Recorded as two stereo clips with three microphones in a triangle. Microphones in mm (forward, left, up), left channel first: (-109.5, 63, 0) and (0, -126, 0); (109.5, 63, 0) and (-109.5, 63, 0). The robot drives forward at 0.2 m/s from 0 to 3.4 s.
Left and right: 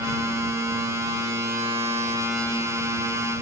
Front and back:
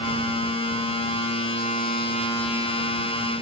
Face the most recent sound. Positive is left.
No sound to turn to.